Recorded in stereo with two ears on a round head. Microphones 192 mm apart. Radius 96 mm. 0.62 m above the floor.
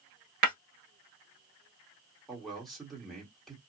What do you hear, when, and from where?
0.4 s breaking glass: 45° right (ahead or behind), 0.9 m
2.3 s a man speaking: centre (ahead or behind), 1.2 m